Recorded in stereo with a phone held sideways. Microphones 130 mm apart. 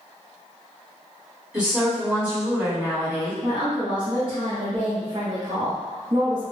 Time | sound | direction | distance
1.5 | a woman speaking | 5° right (ahead or behind) | 2.0 m
3.4 | a woman speaking | 40° right (ahead or behind) | 0.9 m